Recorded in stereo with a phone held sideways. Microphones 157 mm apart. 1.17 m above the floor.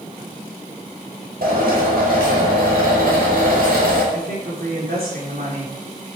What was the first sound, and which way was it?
A drill, 85° right.